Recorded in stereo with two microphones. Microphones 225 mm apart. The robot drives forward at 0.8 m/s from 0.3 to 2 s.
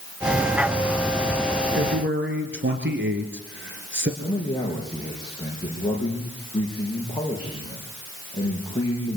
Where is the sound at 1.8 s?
55° right (ahead or behind), 2.5 m.